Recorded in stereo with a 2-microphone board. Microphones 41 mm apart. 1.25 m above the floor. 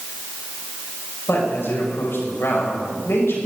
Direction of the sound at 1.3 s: 80° left.